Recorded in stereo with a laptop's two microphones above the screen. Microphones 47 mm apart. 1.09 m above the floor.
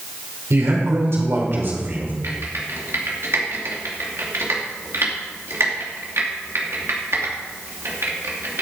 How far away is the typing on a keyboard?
About 2.5 m.